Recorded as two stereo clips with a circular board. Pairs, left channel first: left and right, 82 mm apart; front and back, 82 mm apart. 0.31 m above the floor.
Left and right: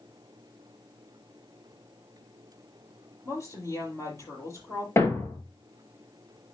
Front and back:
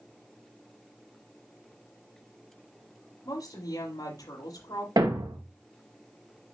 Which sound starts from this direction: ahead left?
A woman speaking, at 3.2 s.